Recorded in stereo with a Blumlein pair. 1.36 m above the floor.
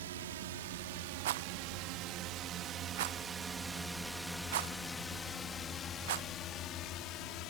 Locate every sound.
0.0 s a drone: 60° right; by 7.5 s 40° left
1.2 s a rattle: 55° right